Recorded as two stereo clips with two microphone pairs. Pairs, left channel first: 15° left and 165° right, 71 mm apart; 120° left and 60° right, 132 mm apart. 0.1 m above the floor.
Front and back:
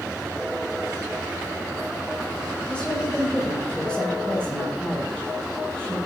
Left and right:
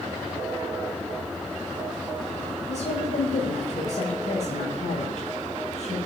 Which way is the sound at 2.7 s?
90° left.